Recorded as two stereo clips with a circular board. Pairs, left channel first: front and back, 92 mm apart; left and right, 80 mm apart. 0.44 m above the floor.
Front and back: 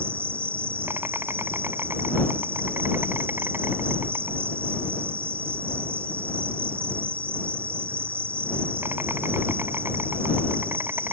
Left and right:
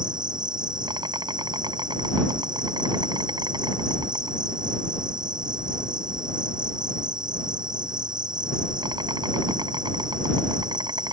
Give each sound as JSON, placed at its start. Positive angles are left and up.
{"t": 0.0, "sound": "an insect", "azimuth_deg": -115}